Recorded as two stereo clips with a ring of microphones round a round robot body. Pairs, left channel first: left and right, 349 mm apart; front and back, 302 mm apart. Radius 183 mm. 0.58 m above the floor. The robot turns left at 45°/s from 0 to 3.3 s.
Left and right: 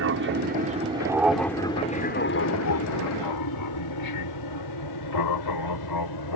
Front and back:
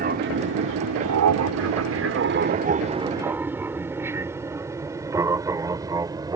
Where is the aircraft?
125° right; by 6.4 s 105° left.